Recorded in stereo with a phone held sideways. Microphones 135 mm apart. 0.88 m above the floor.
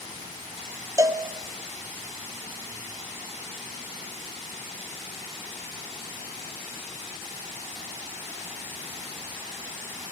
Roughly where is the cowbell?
Right.